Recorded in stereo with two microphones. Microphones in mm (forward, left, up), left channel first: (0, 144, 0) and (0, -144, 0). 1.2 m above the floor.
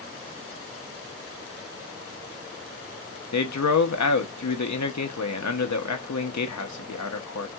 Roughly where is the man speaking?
Left.